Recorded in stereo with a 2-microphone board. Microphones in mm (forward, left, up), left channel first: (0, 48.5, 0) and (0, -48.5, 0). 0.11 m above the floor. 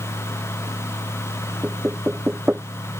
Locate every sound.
1.6 s knocking: 15° right (ahead or behind)